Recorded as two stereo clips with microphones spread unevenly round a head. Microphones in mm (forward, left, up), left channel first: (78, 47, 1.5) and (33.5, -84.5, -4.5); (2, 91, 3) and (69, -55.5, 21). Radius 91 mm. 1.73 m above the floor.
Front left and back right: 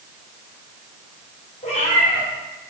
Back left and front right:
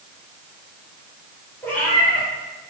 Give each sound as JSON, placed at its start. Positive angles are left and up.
{"t": 1.6, "sound": "a cat meowing", "azimuth_deg": 35, "distance_m": 4.0}